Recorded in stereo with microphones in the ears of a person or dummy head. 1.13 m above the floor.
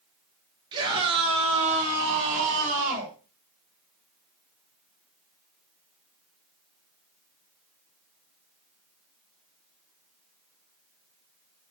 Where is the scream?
25° right (ahead or behind), 3 m; by 3.1 s 50° right (ahead or behind), 3.5 m.